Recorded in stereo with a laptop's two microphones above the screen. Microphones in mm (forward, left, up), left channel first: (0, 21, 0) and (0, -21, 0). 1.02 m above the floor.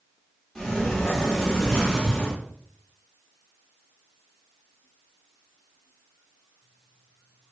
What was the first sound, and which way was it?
A sliding door, 10° left (ahead or behind).